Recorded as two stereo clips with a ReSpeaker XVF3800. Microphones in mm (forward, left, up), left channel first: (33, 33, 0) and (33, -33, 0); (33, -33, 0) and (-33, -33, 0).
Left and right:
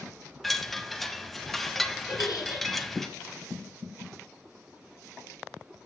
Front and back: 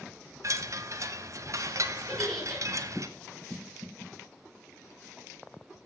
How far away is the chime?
About 1.1 m.